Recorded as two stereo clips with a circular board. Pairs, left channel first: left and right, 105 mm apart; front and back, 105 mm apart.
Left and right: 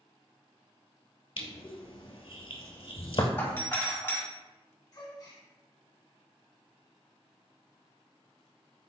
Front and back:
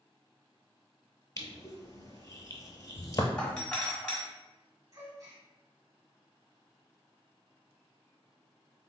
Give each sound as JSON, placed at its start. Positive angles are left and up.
{"t": 1.4, "sound": "crushing", "azimuth_deg": 55, "distance_m": 0.8}
{"t": 3.4, "sound": "a doorbell", "azimuth_deg": 65, "distance_m": 1.6}
{"t": 4.9, "sound": "a gasp", "azimuth_deg": 130, "distance_m": 1.9}